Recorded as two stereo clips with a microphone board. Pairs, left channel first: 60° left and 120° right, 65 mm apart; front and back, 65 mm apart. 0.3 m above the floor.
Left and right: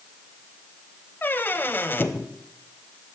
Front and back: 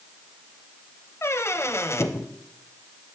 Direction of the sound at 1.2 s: 20° left.